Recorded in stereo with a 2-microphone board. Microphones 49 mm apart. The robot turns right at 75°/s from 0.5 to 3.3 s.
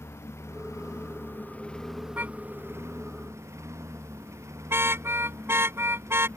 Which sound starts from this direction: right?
A car horn, at 2.2 s.